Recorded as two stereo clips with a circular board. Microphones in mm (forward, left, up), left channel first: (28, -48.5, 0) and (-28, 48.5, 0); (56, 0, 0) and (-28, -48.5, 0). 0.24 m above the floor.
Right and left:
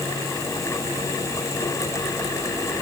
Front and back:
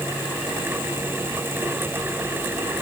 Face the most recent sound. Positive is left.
No sound to turn to.